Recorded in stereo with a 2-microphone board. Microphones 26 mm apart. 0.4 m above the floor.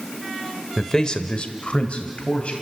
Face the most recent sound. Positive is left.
turn(degrees=60)  # may be behind; listen again after turning